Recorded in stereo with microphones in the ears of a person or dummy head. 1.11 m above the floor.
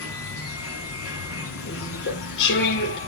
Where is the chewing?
55° left (ahead or behind), 3.5 m.